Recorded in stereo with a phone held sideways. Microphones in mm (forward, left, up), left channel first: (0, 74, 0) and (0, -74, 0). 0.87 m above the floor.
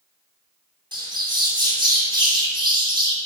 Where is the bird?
30° right (ahead or behind), 3 m.